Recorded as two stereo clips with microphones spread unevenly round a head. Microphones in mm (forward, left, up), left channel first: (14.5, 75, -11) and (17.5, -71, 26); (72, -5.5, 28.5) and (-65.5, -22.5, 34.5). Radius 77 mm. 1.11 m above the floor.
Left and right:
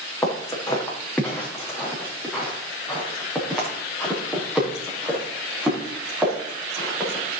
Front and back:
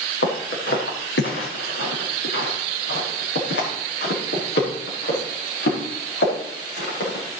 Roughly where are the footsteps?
Ahead.